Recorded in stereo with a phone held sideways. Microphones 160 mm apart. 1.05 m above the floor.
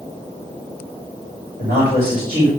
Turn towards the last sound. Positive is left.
turn(degrees=-70)  # may be behind; listen again after turning